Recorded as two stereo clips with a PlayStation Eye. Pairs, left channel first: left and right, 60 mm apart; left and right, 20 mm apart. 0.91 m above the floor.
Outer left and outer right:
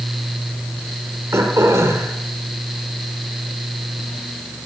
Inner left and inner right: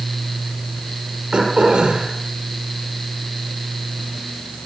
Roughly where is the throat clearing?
Right.